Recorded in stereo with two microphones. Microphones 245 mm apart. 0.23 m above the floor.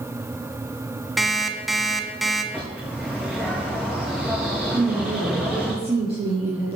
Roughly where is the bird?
Centre.